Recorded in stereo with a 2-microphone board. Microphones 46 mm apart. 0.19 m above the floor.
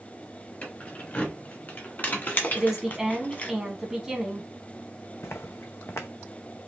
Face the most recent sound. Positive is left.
turn(degrees=65)  # may be behind; listen again after turning